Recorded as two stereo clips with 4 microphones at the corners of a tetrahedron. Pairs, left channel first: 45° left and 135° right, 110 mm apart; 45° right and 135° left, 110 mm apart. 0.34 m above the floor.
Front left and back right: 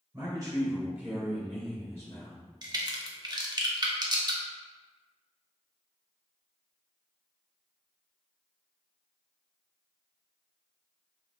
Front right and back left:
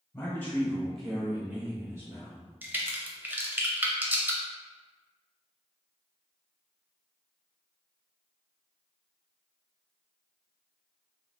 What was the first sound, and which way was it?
A man speaking, 100° right.